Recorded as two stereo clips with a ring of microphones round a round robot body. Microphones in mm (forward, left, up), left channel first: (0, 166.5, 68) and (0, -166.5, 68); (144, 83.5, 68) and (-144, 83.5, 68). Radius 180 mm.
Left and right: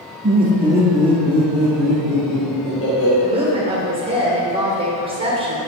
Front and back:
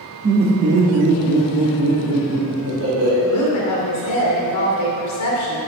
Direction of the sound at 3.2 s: 20° right.